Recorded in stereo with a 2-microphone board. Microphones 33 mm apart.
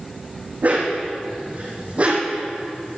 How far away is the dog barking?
About 4 m.